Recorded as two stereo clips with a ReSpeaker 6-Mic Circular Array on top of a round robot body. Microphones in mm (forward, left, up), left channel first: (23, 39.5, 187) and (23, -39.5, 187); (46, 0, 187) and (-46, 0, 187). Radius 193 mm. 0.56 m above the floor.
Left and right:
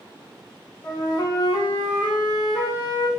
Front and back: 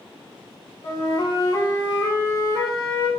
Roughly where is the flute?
Ahead left.